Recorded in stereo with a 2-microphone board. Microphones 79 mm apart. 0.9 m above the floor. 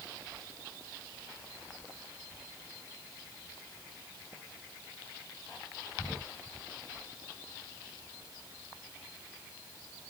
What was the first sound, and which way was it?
Only background noise.